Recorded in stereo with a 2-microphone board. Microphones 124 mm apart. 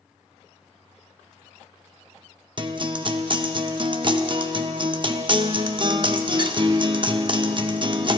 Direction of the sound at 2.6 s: 40° right (ahead or behind).